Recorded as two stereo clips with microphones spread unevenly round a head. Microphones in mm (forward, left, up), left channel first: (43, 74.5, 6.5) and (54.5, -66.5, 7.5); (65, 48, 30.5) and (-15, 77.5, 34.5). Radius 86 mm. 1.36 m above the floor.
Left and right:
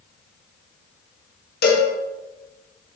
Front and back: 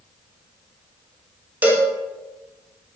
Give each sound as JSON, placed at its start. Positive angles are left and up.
{"t": 1.6, "sound": "a cowbell", "azimuth_deg": 90, "distance_m": 1.5}